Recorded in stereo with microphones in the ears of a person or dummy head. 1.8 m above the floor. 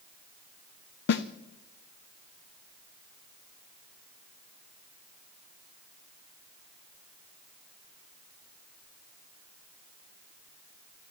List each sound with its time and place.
1.1 s a snare drum: 60° left (ahead or behind), 0.7 m